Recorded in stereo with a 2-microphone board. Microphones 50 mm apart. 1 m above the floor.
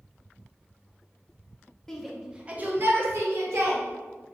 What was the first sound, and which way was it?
A shout, 10° left (ahead or behind).